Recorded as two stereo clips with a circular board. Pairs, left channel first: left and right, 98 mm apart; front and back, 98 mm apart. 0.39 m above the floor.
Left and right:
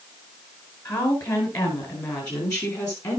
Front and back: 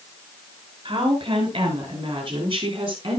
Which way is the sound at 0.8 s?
140° left.